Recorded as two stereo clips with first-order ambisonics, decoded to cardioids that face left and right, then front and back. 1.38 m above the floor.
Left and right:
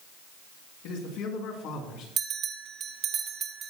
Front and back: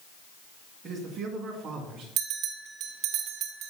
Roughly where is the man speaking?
Left.